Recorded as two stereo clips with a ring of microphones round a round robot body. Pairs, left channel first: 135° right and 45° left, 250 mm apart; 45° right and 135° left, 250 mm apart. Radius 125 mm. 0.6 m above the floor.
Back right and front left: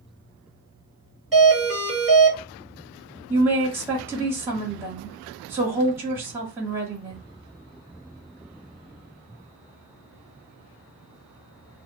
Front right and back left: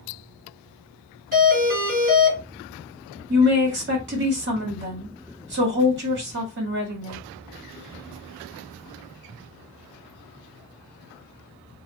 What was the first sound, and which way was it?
A doorbell, 135° left.